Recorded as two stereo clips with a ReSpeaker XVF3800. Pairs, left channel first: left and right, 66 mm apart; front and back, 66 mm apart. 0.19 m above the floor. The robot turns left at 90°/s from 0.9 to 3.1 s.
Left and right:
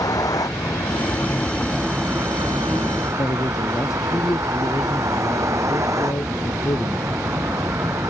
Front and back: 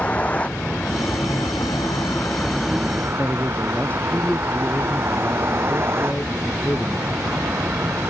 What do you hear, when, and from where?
0.0 s a vehicle: 70° left; by 8.1 s 130° right
3.2 s a man speaking: 65° left